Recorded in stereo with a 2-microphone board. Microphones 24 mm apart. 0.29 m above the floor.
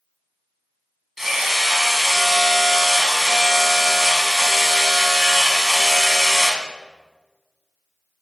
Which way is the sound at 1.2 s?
10° right (ahead or behind).